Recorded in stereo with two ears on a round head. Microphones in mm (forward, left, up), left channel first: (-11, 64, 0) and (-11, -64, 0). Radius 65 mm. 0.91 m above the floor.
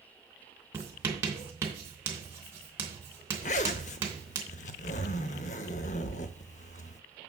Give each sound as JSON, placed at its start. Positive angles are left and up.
{"t": 0.7, "sound": "writing", "side_deg": -20, "distance_m": 3.0}
{"t": 3.4, "sound": "a zipper", "side_deg": 55, "distance_m": 0.8}